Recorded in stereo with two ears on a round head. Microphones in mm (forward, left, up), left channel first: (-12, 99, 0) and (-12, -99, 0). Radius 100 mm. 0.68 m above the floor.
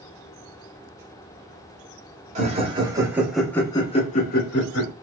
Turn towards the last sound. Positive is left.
turn(degrees=55)  # may be behind; listen again after turning